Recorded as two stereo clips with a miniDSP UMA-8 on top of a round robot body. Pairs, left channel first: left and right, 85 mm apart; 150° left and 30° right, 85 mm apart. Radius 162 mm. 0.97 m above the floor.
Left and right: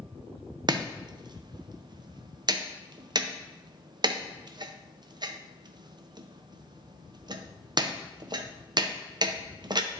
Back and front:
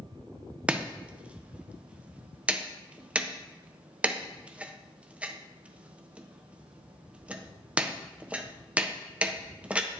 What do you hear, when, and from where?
0.7 s chopping: 100° right, 0.8 m